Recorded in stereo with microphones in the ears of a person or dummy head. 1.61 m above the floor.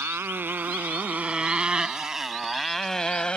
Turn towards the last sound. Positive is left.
turn(degrees=10)  # may be behind; listen again after turning